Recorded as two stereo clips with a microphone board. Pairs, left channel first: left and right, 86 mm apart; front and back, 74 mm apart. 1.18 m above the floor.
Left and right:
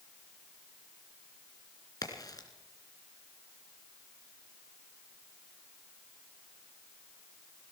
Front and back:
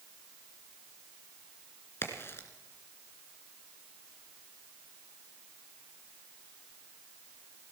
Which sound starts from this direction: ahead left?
A crack, at 2.0 s.